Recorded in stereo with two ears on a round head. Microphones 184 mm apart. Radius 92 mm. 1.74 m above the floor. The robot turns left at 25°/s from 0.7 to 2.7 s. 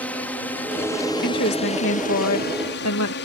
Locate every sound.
0.0 s a drone: 5° left (ahead or behind); by 3.2 s 55° left (ahead or behind)
1.2 s a woman speaking: 130° left; by 3.1 s 95° left